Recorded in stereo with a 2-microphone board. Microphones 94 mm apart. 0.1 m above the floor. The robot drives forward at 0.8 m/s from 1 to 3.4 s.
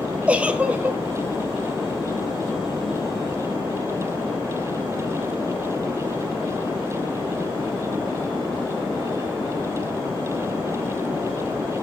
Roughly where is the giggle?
Centre.